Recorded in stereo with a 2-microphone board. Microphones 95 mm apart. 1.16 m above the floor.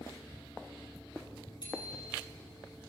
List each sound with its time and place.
1.6 s a bicycle bell: 50° left (ahead or behind), 7.5 m